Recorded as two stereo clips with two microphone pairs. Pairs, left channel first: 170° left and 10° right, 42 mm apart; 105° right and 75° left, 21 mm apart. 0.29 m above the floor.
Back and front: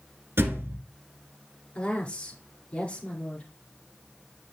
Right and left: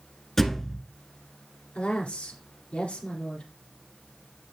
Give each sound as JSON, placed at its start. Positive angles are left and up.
{"t": 0.4, "sound": "a thud", "azimuth_deg": -35, "distance_m": 1.2}
{"t": 1.8, "sound": "a woman speaking", "azimuth_deg": -130, "distance_m": 4.0}